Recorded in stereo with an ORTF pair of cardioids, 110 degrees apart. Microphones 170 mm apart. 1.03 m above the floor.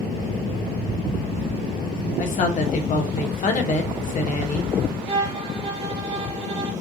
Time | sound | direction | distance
2.2 | a woman speaking | 50° left | 1.2 m
5.1 | a violin | 35° right | 1.3 m